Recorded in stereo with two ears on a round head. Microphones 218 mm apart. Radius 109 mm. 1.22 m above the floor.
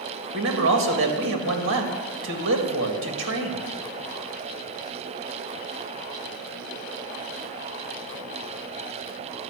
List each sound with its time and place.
0.3 s a man speaking: 55° right (ahead or behind), 2.0 m